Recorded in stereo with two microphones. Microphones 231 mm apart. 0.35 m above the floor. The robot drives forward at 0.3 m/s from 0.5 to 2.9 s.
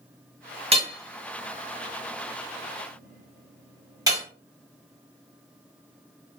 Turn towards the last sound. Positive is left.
turn(degrees=-15)  # may be behind; listen again after turning